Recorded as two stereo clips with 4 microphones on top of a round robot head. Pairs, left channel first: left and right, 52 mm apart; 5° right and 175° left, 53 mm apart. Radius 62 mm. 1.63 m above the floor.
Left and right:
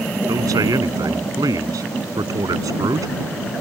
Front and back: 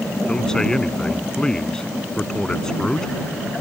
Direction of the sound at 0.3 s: 85° right.